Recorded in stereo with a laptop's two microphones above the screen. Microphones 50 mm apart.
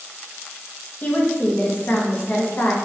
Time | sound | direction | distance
1.0 | a woman speaking | 30° left (ahead or behind) | 0.5 m